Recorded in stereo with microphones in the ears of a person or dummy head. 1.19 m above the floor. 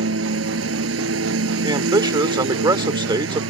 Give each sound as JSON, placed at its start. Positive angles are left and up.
{"t": 0.0, "sound": "a lawn mower", "side_deg": -80}
{"t": 1.6, "sound": "a man speaking", "side_deg": -25}